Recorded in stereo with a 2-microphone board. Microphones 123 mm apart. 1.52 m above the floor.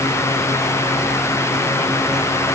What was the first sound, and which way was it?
Only background noise.